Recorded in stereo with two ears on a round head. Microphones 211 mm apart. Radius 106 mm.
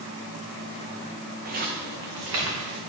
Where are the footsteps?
40° right (ahead or behind), 2.0 m; by 2.8 s 70° right (ahead or behind), 2.5 m.